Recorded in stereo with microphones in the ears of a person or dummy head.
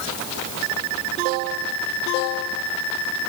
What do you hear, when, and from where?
Only background noise.